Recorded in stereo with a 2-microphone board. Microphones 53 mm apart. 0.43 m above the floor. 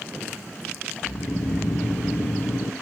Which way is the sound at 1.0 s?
65° left (ahead or behind).